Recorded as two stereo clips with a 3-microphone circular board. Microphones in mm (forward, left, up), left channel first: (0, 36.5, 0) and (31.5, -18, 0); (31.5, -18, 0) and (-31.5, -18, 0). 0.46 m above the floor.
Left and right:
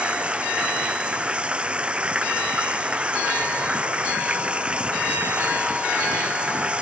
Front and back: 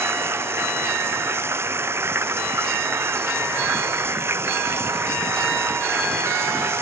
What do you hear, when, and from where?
0.0 s running water: 130° right